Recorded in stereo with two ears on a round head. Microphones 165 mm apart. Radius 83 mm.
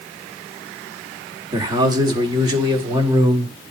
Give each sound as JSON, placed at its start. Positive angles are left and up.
{"t": 1.5, "sound": "a man speaking", "side_deg": -20, "distance_m": 1.4}